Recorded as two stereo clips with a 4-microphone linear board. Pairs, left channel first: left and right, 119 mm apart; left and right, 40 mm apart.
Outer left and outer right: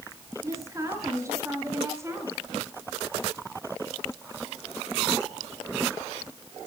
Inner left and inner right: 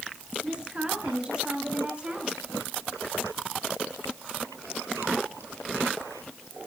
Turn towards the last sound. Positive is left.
turn(degrees=-25)  # may be behind; listen again after turning